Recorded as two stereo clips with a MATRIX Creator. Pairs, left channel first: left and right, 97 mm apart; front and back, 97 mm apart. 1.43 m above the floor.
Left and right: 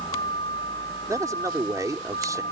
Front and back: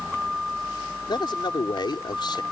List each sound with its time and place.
0.0 s a vehicle: 95° left
1.1 s a man speaking: 35° right